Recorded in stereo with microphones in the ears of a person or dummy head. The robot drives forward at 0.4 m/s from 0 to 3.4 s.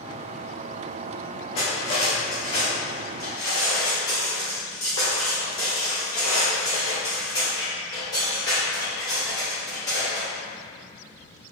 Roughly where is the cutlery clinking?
Left.